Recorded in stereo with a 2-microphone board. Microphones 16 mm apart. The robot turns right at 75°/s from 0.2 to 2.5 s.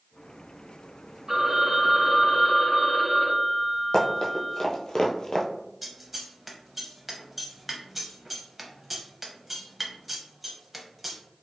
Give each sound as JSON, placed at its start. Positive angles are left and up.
{"t": 1.3, "sound": "a phone ringing", "azimuth_deg": -50, "distance_m": 1.3}
{"t": 3.9, "sound": "running footsteps", "side_deg": 50, "distance_m": 1.0}
{"t": 5.8, "sound": "scissors", "side_deg": -10, "distance_m": 0.6}